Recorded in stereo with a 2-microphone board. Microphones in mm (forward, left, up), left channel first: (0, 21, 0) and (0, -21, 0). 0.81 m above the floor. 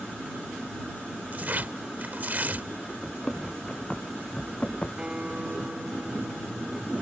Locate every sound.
1.3 s tearing paper: 45° right (ahead or behind)
3.0 s running footsteps: 10° left (ahead or behind); by 4.9 s 25° left (ahead or behind)
5.0 s a guitar: 25° right (ahead or behind)